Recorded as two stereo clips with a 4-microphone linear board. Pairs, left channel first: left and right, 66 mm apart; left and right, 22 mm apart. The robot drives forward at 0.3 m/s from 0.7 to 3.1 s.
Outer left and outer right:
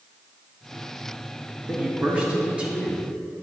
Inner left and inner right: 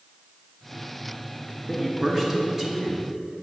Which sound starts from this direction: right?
A man speaking, at 1.7 s.